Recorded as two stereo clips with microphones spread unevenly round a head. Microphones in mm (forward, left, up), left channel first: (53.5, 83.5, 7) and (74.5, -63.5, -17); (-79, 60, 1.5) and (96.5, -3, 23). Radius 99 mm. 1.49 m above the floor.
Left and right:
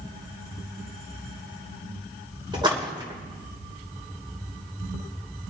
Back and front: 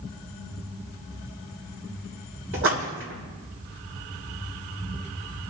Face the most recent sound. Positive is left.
turn(degrees=-20)